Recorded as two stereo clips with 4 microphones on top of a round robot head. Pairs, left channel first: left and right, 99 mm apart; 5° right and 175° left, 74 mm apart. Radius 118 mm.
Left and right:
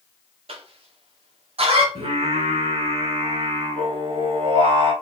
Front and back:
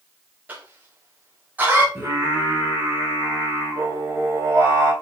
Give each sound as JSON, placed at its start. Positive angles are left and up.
{"t": 0.5, "sound": "a cough", "azimuth_deg": -110, "distance_m": 2.5}
{"t": 1.9, "sound": "singing", "azimuth_deg": -115, "distance_m": 3.0}